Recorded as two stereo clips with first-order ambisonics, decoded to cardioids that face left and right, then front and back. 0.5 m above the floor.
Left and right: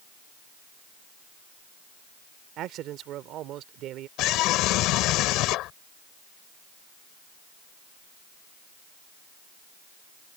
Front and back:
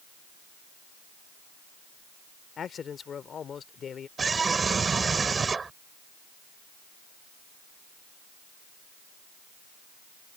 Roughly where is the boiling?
No boiling in this recording.